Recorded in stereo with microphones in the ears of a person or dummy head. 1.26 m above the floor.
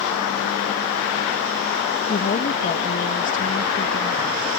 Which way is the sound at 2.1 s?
40° left (ahead or behind).